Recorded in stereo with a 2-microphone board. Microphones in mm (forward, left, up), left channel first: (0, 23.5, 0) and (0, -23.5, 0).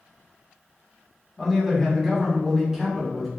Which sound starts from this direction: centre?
A man speaking, at 1.4 s.